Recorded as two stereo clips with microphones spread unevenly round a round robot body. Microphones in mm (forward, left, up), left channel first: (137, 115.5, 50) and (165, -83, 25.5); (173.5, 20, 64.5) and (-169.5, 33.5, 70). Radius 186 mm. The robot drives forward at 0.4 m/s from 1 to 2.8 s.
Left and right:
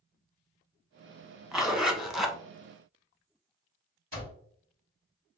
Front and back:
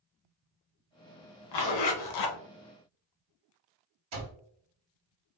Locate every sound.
1.5 s a zipper: 5° left, 1.1 m
4.1 s an alarm clock: 135° right, 1.9 m